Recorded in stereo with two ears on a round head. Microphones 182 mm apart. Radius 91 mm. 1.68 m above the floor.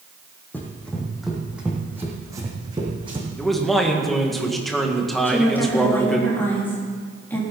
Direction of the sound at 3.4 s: Centre (ahead or behind).